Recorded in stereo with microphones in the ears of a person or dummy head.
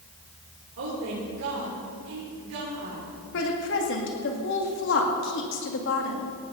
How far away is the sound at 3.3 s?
About 2.5 m.